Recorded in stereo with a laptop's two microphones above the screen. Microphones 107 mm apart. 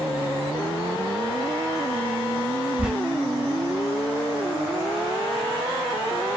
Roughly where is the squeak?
Centre.